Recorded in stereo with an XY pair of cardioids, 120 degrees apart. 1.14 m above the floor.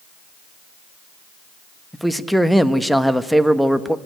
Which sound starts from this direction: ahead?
A man speaking, at 1.9 s.